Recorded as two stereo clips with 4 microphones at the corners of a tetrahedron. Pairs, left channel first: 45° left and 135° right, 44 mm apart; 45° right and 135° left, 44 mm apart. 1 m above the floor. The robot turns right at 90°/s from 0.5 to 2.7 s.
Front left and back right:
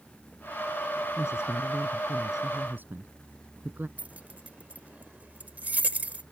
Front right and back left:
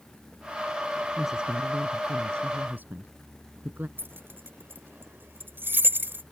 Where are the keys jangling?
170° left.